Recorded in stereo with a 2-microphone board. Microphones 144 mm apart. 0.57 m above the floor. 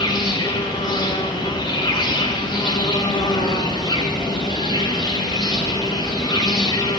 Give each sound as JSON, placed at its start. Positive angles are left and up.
{"t": 0.0, "sound": "an insect", "side_deg": 30, "distance_m": 1.4}